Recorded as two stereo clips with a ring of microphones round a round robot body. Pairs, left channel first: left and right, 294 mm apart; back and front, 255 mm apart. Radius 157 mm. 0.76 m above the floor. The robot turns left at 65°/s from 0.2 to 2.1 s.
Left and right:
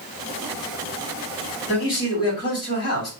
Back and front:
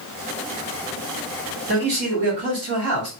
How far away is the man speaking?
About 2 m.